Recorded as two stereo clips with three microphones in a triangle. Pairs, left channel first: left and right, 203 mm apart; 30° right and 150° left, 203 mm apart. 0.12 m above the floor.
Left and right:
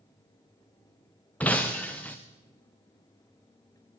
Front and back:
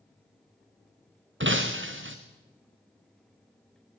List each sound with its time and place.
1.4 s breaking glass: 170° left, 3 m